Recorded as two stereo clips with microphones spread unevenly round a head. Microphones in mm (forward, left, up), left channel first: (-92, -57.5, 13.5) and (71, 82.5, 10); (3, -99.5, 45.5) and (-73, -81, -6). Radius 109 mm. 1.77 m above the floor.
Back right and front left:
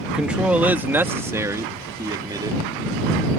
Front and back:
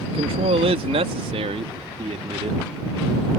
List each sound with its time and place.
0.1 s a man speaking: 130° left; by 3.3 s 110° left